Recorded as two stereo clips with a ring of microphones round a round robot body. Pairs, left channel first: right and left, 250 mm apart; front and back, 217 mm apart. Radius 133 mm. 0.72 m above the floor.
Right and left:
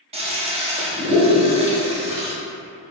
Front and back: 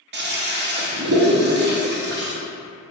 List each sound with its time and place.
0.1 s a toilet flushing: 155° left, 0.7 m